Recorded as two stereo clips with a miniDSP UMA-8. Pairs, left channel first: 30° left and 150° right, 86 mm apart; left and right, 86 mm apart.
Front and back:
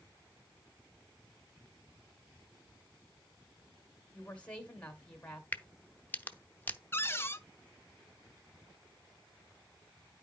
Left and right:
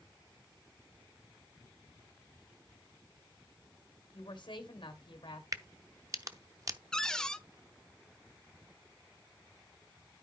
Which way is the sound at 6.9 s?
15° left.